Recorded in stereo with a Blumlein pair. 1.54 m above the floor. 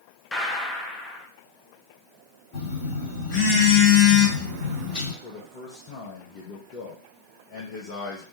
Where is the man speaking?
45° left, 0.9 m.